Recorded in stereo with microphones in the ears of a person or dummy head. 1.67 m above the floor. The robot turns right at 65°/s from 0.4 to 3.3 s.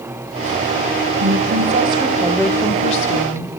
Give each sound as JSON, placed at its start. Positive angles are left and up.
{"t": 1.2, "sound": "a woman speaking", "azimuth_deg": -75, "distance_m": 1.5}